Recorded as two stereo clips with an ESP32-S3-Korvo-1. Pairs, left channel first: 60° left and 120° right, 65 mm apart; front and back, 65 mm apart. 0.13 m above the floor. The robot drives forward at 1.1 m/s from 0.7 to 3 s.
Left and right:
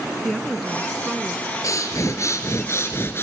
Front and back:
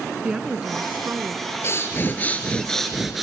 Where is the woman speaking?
140° left, 1.1 m; by 1.5 s 170° left, 1.6 m.